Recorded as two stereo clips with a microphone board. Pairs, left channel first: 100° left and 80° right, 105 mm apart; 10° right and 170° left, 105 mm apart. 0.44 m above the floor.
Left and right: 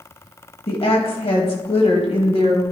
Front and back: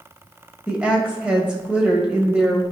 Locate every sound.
0.7 s a woman speaking: 90° left, 2 m